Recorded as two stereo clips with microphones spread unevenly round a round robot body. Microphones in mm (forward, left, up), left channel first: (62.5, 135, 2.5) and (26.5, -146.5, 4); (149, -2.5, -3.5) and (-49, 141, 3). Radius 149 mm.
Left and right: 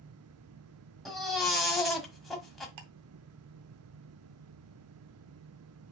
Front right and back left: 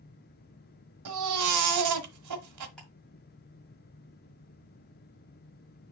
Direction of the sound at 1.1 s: 170° left.